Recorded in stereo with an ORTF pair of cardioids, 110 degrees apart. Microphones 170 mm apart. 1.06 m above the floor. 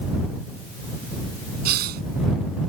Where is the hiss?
70° right.